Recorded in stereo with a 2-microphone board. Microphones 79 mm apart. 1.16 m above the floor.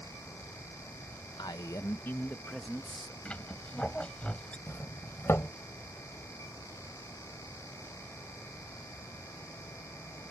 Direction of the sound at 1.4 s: 65° left (ahead or behind).